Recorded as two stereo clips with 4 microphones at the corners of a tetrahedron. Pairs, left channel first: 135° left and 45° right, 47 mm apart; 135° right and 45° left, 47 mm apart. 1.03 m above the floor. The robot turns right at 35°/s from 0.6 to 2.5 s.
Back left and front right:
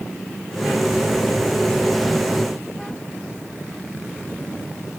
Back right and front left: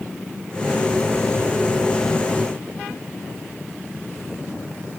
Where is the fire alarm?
I don't hear a fire alarm.